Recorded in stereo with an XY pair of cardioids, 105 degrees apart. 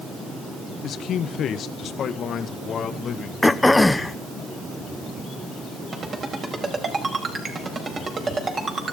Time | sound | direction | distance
0.8 | a man speaking | 65° left | 0.8 m
3.4 | throat clearing | 10° left | 0.8 m
5.9 | a ringtone | 45° right | 5 m